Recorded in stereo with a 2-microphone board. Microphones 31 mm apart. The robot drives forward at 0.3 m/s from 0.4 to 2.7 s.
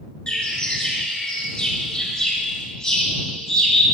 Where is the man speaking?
I don't hear a man speaking.